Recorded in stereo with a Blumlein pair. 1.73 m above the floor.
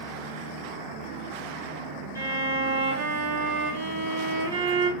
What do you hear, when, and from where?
2.1 s a violin: 70° right, 1.5 m